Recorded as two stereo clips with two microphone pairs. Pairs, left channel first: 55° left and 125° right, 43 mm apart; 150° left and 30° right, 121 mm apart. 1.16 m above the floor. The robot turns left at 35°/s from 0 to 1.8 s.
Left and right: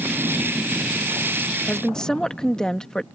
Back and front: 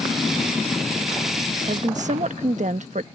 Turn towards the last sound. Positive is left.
turn(degrees=-20)